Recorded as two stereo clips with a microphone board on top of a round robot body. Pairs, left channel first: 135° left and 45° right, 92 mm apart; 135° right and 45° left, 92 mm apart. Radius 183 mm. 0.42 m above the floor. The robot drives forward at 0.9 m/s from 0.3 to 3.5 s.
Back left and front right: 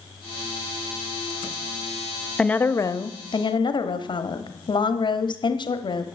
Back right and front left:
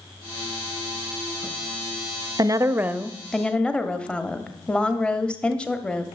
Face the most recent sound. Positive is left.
turn(degrees=145)